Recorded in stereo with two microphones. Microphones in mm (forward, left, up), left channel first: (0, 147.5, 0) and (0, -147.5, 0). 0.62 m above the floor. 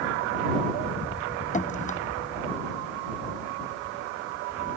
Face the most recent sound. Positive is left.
turn(degrees=25)  # may be behind; listen again after turning